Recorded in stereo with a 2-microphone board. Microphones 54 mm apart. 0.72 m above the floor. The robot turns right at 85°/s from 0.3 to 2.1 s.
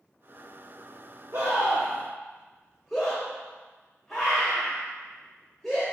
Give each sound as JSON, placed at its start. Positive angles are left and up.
{"t": 1.3, "sound": "a scream", "side_deg": -65, "distance_m": 2.5}